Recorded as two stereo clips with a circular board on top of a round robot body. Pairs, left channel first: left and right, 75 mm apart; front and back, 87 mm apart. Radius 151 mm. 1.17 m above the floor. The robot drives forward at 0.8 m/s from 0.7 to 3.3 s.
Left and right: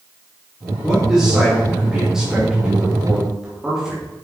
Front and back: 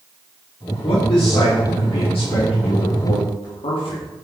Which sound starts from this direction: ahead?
A man speaking, at 0.8 s.